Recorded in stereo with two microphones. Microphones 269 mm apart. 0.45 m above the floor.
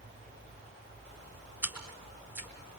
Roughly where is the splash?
Centre.